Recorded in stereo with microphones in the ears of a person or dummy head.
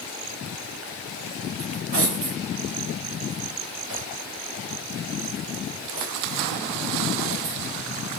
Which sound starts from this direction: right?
Cutlery clinking, at 1.6 s.